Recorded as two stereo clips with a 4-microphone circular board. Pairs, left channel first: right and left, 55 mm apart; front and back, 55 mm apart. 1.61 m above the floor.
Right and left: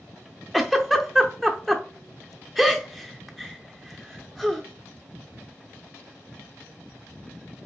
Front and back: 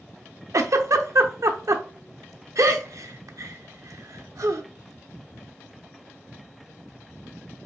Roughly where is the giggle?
Behind.